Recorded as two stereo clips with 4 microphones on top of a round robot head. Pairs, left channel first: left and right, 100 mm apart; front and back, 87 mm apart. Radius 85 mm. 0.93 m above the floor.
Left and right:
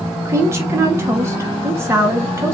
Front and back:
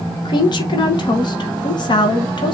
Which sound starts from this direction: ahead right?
A woman speaking, at 0.2 s.